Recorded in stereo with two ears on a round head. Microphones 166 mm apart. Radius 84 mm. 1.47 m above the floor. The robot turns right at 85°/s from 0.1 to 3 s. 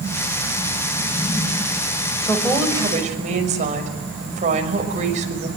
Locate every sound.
2.2 s a woman speaking: 155° left, 6 m; by 5.5 s 140° right, 6 m